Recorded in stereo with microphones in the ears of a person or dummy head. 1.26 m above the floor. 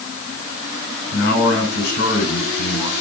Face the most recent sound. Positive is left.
turn(degrees=70)  # may be behind; listen again after turning